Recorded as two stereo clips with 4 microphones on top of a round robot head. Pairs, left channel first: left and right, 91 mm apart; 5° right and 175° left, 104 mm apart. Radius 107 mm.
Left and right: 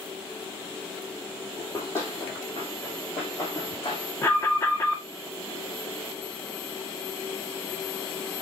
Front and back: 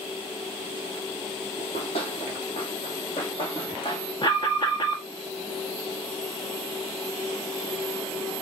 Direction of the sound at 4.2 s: 30° left.